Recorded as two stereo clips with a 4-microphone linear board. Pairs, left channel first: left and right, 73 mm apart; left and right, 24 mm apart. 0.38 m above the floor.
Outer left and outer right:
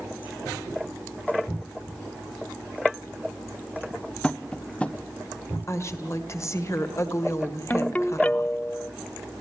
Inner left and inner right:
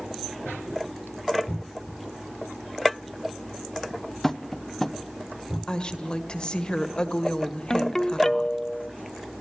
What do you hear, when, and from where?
4.2 s tapping: 15° left (ahead or behind), 0.6 m
5.7 s a woman speaking: 40° left (ahead or behind), 1.6 m
7.7 s a ringtone: 20° left (ahead or behind), 0.6 m